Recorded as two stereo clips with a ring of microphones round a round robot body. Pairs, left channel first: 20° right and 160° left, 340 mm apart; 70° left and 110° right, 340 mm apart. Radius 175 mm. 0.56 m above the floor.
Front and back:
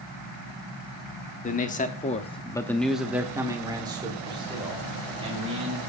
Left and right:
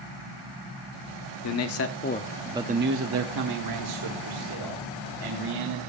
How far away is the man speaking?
About 1.4 m.